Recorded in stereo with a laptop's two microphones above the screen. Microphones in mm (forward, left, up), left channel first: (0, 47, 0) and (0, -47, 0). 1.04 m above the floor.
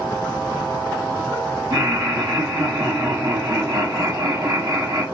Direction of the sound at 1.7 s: 45° right (ahead or behind).